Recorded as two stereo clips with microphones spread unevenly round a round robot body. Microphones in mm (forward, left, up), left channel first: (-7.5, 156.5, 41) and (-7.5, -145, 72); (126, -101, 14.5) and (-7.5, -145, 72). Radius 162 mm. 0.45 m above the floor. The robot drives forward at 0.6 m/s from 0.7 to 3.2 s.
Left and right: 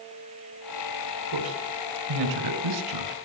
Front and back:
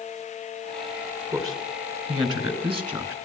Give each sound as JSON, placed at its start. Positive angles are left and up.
{"t": 1.3, "sound": "a man speaking", "azimuth_deg": -95, "distance_m": 4.5}